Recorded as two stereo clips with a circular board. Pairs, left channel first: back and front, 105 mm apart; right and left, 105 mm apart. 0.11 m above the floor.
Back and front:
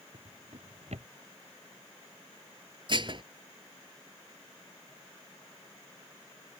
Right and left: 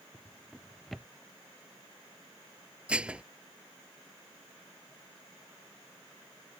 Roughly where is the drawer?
Ahead.